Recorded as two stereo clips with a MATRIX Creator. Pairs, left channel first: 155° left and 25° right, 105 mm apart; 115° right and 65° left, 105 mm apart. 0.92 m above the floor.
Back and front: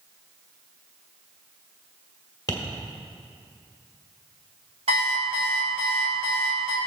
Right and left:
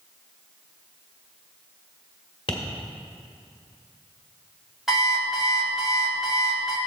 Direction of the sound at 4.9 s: 20° right.